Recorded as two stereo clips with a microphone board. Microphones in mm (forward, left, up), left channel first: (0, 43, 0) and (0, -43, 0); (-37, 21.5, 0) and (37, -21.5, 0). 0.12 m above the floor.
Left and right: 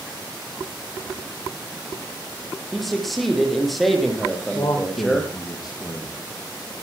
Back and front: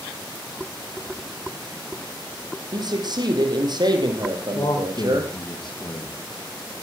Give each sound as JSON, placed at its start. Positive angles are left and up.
{"t": 2.7, "sound": "a man speaking", "azimuth_deg": 0, "distance_m": 3.5}
{"t": 4.5, "sound": "a man speaking", "azimuth_deg": 125, "distance_m": 4.0}